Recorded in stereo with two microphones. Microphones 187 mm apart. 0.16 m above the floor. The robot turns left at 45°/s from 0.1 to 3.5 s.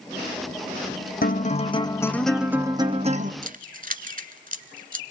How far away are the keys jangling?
About 1.4 m.